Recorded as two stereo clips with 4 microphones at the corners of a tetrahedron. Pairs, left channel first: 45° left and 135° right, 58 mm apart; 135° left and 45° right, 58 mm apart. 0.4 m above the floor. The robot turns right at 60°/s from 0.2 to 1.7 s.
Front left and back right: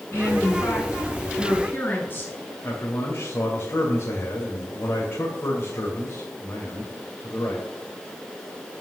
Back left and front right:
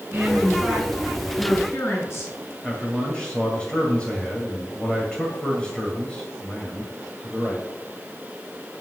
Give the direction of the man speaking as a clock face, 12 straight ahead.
10 o'clock.